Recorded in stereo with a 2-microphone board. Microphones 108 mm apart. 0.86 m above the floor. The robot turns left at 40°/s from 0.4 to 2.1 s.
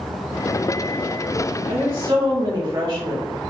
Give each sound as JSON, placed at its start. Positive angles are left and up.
{"t": 1.7, "sound": "a woman speaking", "side_deg": -60, "distance_m": 1.9}